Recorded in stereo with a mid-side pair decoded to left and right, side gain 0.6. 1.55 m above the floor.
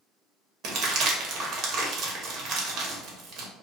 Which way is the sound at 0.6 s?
70° right.